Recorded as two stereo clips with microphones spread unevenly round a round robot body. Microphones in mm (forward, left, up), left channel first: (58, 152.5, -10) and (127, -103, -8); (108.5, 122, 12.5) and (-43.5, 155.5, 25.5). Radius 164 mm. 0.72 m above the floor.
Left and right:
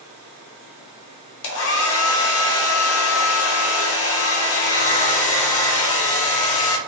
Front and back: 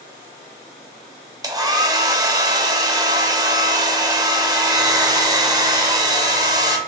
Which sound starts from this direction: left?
A hair dryer, at 1.4 s.